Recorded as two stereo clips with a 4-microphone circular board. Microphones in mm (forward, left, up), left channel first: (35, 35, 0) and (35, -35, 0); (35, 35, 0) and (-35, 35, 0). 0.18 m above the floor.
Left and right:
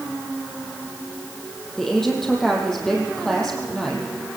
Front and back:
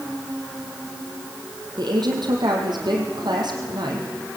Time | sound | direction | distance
1.8 | a woman speaking | 170° left | 5.5 m